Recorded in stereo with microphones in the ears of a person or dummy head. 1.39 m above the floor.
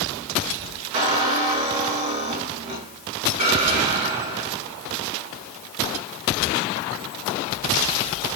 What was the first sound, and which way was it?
A squeak, 40° right (ahead or behind).